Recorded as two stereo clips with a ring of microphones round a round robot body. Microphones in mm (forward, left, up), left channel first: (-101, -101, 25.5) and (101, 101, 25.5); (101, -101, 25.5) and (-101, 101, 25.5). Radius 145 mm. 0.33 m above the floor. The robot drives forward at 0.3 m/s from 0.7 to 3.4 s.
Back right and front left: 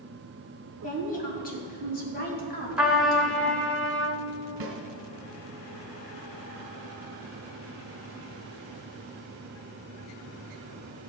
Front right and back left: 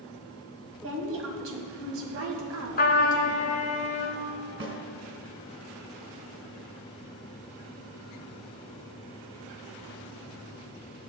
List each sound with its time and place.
0.8 s a woman speaking: 170° left, 2.5 m
2.8 s a trumpet: 40° right, 1.2 m; by 4.2 s 55° right, 1.1 m
4.6 s a snare drum: 85° left, 2.5 m